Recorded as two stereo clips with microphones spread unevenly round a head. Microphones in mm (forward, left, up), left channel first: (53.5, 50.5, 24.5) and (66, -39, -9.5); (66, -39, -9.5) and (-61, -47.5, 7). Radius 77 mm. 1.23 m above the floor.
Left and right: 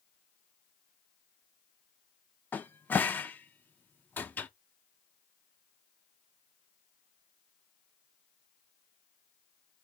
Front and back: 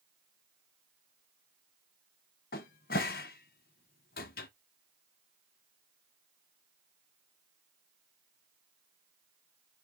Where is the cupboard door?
25° left, 0.5 m.